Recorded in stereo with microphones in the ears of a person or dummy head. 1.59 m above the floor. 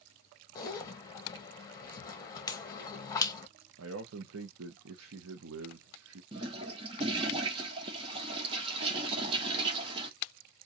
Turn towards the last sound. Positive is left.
turn(degrees=-25)  # may be behind; listen again after turning